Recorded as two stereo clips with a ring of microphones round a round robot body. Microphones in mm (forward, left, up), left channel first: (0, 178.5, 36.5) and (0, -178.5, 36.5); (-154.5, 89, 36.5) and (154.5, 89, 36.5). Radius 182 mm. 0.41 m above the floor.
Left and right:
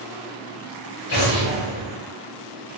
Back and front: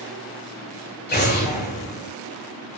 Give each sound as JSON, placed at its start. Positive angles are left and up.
{"t": 1.1, "sound": "an explosion", "azimuth_deg": 120, "distance_m": 6.0}